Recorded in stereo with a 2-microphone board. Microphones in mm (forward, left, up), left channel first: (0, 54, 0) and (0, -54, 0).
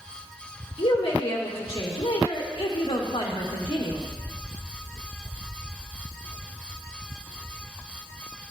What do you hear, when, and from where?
0.8 s a woman speaking: 65° left (ahead or behind), 1.6 m